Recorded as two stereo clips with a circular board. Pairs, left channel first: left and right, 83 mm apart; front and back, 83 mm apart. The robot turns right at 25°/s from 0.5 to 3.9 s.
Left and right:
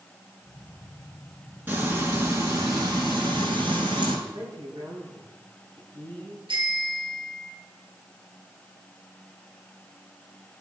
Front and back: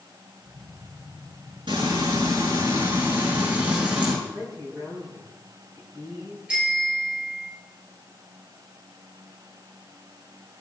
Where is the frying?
160° right, 6.5 m; by 4.2 s 105° right, 6.5 m.